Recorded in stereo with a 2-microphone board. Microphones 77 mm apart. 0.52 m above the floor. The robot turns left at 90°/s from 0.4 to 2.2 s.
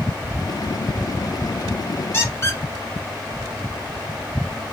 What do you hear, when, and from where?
2.1 s a squeak: 30° left (ahead or behind), 1.2 m; by 2.6 s 35° left (ahead or behind), 1.2 m